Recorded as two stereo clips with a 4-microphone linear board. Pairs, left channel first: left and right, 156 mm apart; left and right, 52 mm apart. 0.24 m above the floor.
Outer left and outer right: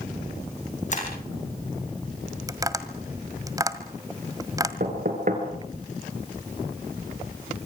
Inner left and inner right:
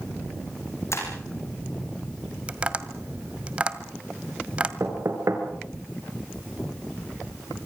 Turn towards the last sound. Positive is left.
turn(degrees=-60)  # may be behind; listen again after turning